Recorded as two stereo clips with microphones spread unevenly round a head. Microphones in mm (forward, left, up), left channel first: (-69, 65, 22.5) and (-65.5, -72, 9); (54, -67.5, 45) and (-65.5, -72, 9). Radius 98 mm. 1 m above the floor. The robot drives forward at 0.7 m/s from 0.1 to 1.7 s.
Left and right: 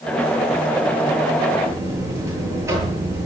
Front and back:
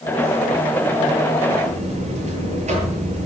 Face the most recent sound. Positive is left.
turn(degrees=-155)